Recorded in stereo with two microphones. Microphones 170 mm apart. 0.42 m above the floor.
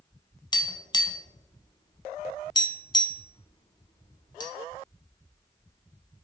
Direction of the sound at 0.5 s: 25° left (ahead or behind).